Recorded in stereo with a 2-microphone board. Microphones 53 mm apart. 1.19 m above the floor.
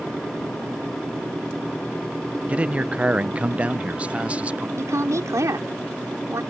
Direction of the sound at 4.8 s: 80° right.